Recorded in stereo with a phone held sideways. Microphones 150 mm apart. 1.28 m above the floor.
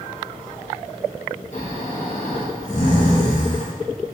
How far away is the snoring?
About 0.7 m.